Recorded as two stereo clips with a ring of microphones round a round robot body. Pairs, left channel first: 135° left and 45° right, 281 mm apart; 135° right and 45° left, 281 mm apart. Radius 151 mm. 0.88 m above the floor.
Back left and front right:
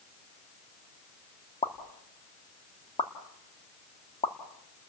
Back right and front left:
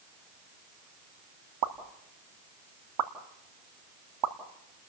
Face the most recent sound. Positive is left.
turn(degrees=65)